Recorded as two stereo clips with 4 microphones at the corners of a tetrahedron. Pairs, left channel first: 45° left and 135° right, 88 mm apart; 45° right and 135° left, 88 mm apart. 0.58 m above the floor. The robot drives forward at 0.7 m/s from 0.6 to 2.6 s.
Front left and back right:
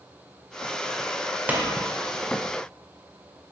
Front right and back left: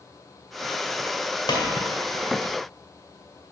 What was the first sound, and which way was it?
A pop, 65° right.